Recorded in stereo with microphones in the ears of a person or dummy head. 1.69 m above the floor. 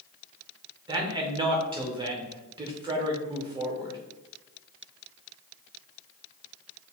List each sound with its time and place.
0.9 s a man speaking: 25° right (ahead or behind), 0.8 m